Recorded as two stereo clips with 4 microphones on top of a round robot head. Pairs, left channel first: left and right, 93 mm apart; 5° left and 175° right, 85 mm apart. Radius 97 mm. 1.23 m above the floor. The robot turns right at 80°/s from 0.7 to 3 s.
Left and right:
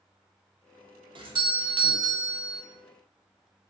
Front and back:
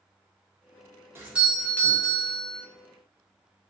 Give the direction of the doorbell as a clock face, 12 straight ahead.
4 o'clock.